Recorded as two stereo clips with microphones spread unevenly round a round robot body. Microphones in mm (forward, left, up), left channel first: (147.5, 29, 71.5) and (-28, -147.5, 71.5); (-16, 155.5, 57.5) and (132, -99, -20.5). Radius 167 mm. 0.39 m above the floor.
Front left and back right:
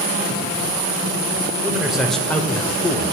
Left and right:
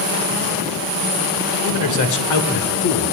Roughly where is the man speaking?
Behind left.